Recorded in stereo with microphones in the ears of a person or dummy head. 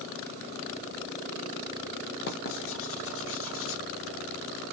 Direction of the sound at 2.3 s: 55° left (ahead or behind).